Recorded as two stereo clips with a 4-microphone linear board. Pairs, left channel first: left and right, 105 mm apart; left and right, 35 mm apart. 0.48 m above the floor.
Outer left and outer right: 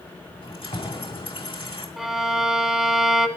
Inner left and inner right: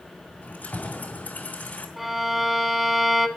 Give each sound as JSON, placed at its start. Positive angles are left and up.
{"t": 0.4, "sound": "keys jangling", "side_deg": 65, "distance_m": 2.5}
{"t": 2.0, "sound": "a violin", "side_deg": -5, "distance_m": 0.7}